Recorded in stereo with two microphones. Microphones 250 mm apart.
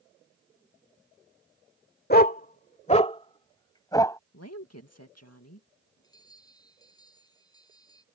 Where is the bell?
15° left (ahead or behind).